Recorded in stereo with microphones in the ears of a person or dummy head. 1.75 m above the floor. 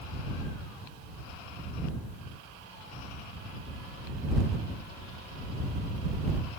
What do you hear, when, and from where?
Only background noise.